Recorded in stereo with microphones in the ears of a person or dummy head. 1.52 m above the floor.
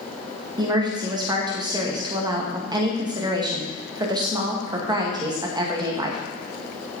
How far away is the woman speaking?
About 1.9 m.